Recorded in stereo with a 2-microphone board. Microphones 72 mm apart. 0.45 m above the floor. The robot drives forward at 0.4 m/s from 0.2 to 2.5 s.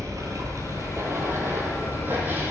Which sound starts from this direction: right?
Running water, at 0.0 s.